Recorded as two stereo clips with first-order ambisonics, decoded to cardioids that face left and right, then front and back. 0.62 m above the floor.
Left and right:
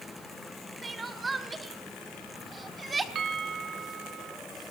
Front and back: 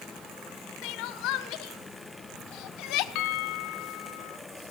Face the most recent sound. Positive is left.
turn(degrees=-30)